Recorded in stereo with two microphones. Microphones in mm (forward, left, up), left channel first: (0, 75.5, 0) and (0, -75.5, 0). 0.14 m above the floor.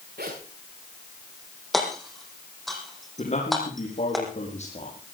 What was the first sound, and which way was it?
A zipper, 80° right.